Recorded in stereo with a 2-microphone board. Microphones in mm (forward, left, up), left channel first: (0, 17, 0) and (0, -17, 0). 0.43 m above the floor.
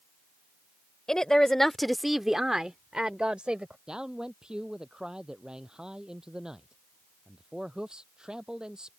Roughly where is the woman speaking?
Centre.